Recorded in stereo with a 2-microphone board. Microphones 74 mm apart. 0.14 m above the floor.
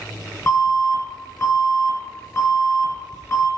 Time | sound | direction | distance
0.5 | an alarm | 30° left (ahead or behind) | 1.6 m